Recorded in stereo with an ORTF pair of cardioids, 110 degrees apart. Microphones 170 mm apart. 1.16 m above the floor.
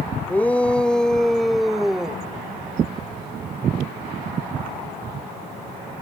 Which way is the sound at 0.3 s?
10° left.